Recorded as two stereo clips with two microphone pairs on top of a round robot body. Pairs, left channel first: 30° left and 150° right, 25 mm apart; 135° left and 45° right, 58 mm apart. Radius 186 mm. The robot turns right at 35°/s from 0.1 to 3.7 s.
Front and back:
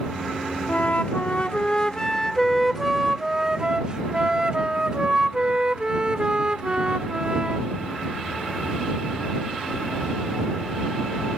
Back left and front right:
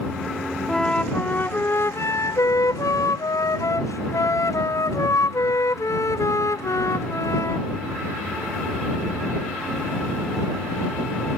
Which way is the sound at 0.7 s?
55° left.